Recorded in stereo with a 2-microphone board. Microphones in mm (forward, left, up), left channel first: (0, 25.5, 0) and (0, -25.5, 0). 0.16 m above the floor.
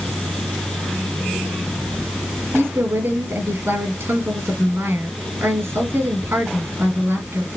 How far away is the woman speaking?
About 3.5 m.